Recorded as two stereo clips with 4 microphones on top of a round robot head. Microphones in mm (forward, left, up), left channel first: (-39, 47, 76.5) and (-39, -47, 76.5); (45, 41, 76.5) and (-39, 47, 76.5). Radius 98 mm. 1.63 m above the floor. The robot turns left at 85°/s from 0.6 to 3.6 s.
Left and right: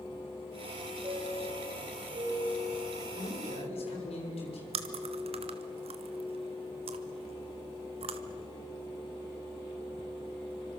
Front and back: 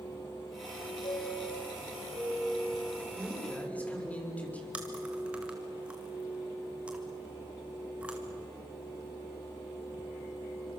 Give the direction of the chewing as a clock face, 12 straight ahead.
3 o'clock.